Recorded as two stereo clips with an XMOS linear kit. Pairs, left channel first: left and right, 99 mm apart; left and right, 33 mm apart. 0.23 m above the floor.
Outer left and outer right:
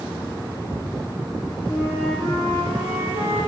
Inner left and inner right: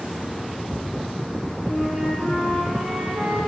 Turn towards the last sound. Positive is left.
turn(degrees=20)  # may be behind; listen again after turning